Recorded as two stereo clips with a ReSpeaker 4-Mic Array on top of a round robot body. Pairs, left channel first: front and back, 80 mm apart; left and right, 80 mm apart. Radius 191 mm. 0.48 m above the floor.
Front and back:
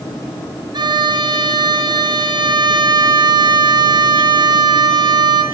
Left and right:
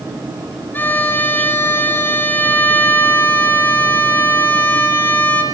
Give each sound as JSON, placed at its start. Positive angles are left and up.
{"t": 0.7, "sound": "a violin", "azimuth_deg": 155, "distance_m": 4.0}